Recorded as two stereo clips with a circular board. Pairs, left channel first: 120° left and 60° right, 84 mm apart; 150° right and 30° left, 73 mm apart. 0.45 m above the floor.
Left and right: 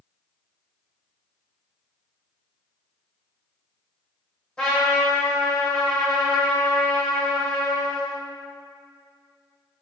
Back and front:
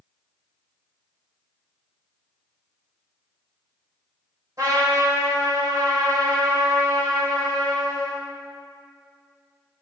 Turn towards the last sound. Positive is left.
turn(degrees=45)